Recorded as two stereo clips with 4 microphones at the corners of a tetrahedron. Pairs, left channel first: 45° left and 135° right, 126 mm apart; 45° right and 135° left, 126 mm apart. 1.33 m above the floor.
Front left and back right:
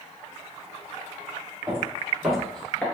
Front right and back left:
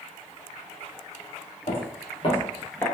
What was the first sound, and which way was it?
Footsteps, 60° right.